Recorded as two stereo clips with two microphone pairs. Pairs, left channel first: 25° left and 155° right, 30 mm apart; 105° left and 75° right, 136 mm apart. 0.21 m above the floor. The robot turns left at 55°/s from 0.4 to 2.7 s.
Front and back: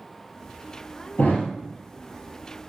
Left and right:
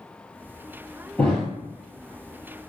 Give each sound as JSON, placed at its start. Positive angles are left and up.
{"t": 1.2, "sound": "a thud", "azimuth_deg": 30, "distance_m": 0.7}